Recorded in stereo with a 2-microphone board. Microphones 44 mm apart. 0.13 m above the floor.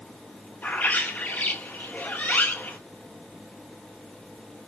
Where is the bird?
40° left (ahead or behind), 1.0 m.